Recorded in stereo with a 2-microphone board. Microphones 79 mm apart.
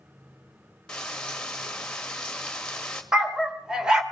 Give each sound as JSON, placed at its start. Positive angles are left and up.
{"t": 0.9, "sound": "frying", "side_deg": 10, "distance_m": 1.8}
{"t": 3.1, "sound": "a dog barking", "side_deg": -10, "distance_m": 1.6}